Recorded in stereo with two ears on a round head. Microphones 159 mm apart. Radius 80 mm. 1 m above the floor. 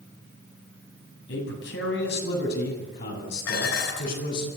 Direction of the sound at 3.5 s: 70° left (ahead or behind).